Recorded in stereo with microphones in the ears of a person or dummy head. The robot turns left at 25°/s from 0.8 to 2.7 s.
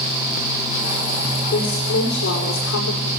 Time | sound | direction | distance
1.5 | a woman speaking | 130° left | 6.5 m